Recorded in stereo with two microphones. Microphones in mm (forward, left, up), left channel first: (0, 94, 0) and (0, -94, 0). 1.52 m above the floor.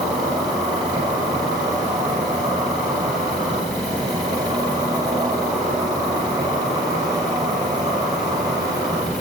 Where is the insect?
20° right (ahead or behind), 5.5 m.